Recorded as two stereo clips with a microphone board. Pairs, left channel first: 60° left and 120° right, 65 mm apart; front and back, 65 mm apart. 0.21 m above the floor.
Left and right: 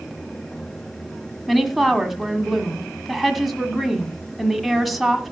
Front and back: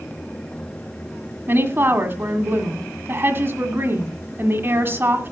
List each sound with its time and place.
1.5 s a woman speaking: 150° left, 1.7 m